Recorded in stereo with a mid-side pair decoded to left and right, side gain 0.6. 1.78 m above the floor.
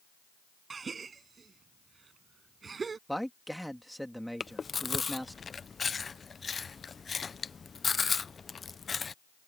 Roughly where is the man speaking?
Ahead.